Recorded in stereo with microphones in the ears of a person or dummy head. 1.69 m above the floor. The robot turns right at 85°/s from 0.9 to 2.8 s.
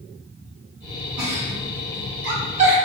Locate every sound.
1.2 s a giggle: 10° right (ahead or behind), 1.5 m; by 2.8 s 35° right (ahead or behind), 1.5 m